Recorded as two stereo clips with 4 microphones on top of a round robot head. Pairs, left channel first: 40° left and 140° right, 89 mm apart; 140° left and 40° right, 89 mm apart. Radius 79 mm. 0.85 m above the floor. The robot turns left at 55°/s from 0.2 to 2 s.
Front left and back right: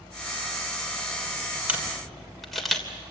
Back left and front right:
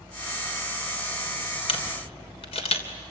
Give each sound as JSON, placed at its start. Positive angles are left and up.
{"t": 1.7, "sound": "a camera shutter", "azimuth_deg": 145, "distance_m": 3.0}